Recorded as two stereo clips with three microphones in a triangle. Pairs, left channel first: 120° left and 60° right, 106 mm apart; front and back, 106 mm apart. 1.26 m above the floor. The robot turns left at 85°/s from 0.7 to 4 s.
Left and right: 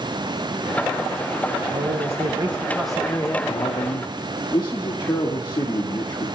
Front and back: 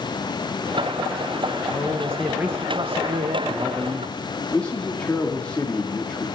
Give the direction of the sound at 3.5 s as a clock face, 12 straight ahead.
8 o'clock.